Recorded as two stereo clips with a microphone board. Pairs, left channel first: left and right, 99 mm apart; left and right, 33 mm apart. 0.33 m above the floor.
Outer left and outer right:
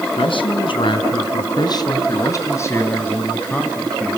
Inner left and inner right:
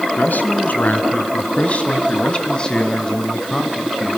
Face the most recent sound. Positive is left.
turn(degrees=5)  # may be behind; listen again after turning